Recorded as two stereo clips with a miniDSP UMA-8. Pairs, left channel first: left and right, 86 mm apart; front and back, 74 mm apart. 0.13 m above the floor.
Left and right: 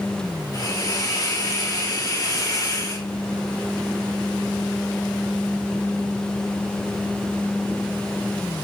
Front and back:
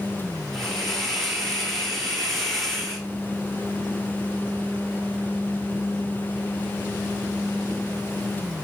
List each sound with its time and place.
0.5 s a hiss: 85° left, 1.3 m